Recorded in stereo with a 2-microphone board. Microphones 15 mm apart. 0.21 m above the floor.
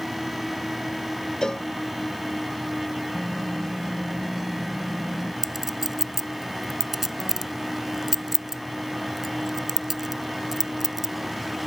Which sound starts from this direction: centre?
Typing on a keyboard, at 3.1 s.